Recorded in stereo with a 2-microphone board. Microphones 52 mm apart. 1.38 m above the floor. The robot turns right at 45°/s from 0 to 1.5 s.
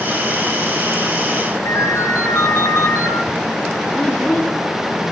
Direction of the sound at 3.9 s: 30° left (ahead or behind).